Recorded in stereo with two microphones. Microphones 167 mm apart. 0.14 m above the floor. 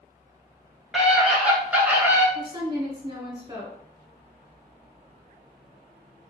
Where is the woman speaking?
25° right (ahead or behind), 1.2 m.